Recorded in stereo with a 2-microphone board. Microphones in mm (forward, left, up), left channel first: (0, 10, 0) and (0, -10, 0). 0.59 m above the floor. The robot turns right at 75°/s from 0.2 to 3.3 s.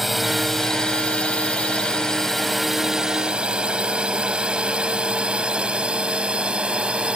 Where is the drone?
5° right (ahead or behind); by 7.2 s 65° right (ahead or behind).